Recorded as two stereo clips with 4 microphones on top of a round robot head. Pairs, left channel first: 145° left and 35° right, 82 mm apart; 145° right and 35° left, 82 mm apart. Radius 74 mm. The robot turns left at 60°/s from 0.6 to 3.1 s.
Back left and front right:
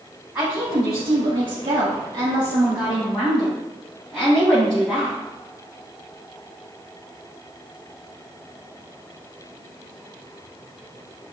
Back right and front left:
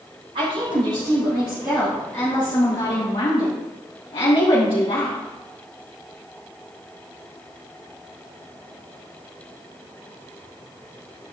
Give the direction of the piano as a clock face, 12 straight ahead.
I don't hear a piano.